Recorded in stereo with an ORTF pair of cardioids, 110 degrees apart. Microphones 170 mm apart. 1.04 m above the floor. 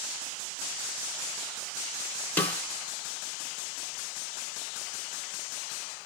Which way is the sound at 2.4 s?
10° left.